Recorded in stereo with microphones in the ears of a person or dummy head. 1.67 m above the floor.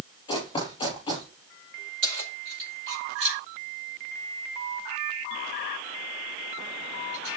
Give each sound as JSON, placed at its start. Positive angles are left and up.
{"t": 0.3, "sound": "running footsteps", "side_deg": 30, "distance_m": 6.5}
{"t": 2.0, "sound": "keys jangling", "side_deg": -80, "distance_m": 4.5}